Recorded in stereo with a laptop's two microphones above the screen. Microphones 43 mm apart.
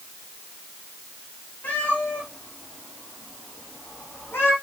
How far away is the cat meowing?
About 5 m.